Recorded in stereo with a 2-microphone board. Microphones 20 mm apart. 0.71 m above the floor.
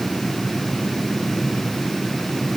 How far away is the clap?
No clap in this recording.